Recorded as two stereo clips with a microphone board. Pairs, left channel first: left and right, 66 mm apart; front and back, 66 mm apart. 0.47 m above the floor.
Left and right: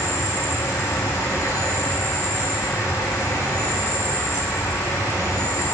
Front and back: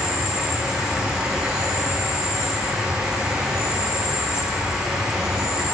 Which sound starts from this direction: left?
An insect, at 0.0 s.